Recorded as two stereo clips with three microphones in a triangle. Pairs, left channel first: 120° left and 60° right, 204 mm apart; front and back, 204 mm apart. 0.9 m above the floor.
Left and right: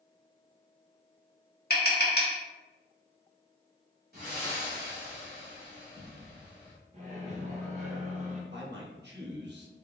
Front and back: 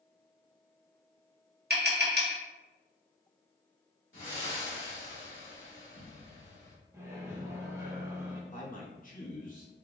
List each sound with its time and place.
1.7 s tapping: 150° left, 1.0 m
4.1 s breathing: 20° right, 1.9 m
6.9 s a microwave: 105° right, 0.8 m
8.5 s a man speaking: 45° right, 1.0 m